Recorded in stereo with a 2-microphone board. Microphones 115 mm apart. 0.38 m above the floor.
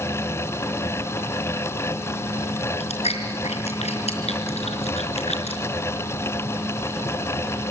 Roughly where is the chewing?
Left.